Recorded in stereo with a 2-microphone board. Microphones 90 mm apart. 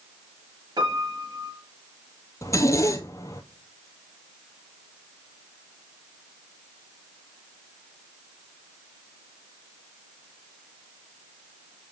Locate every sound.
0.8 s a piano: 55° right (ahead or behind), 2.5 m
2.4 s a zipper: 35° left (ahead or behind), 0.9 m